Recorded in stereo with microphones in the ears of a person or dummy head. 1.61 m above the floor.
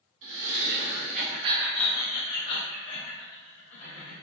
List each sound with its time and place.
0.2 s laughter: 70° right (ahead or behind), 1.6 m; by 4.1 s 75° left (ahead or behind), 2.5 m